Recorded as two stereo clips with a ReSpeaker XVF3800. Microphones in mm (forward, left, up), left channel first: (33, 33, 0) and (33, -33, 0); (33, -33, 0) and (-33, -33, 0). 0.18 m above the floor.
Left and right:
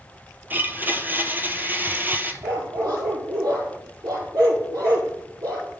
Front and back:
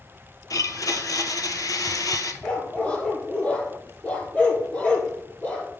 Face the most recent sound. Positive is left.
turn(degrees=-70)